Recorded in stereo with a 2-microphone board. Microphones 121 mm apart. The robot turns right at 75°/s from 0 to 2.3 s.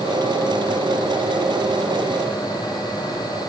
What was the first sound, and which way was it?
Only background noise.